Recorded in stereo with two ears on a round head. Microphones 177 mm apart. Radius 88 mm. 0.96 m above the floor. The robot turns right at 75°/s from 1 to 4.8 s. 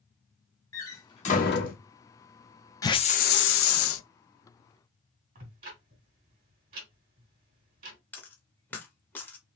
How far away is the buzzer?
I don't hear a buzzer.